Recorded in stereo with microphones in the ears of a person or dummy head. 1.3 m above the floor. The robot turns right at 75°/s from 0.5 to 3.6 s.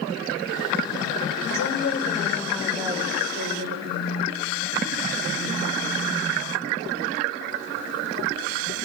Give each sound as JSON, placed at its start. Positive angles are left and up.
{"t": 1.5, "sound": "a woman speaking", "azimuth_deg": 110, "distance_m": 4.5}
{"t": 3.9, "sound": "a phone buzzing", "side_deg": 65, "distance_m": 6.0}